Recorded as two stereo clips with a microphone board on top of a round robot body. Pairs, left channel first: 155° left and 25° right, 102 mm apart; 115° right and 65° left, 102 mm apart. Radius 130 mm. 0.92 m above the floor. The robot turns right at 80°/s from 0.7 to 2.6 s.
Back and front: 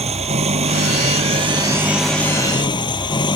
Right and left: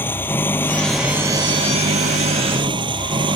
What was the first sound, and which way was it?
An engine running, 40° right.